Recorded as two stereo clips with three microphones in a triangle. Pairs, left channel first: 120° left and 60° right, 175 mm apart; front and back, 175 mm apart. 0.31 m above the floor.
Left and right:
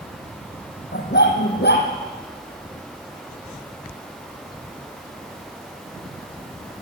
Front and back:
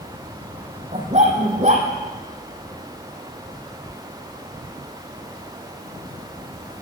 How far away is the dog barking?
About 4 m.